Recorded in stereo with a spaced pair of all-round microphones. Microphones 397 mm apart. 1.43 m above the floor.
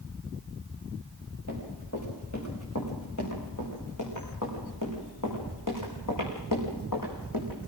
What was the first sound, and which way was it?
Running footsteps, 40° left (ahead or behind).